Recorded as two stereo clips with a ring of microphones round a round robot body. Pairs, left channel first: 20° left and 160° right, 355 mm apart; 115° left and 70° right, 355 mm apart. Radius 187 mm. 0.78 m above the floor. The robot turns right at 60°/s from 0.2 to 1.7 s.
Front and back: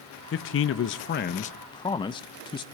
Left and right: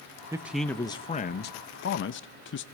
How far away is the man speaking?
About 0.6 m.